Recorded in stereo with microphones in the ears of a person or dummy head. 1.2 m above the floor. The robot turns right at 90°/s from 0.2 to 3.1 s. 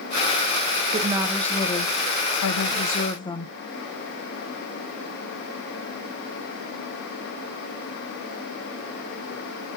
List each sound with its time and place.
0.9 s a woman speaking: 35° right, 0.6 m; by 3.5 s 160° left, 0.6 m